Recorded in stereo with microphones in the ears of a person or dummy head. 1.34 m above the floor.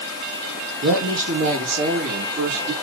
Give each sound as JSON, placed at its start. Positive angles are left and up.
{"t": 0.8, "sound": "a woman speaking", "side_deg": -70, "distance_m": 2.5}